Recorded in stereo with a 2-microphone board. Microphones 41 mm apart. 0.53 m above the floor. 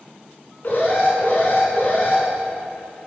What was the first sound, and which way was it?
An alarm, 45° left (ahead or behind).